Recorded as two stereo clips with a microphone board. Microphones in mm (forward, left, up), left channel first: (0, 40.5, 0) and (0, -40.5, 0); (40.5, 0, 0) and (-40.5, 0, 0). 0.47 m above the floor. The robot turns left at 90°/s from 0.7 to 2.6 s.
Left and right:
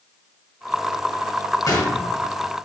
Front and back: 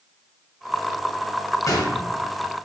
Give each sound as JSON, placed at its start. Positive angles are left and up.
{"t": 1.7, "sound": "a gunshot", "azimuth_deg": 45, "distance_m": 0.6}